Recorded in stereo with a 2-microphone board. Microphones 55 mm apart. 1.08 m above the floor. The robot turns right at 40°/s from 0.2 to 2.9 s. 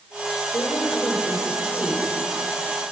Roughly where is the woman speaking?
Behind left.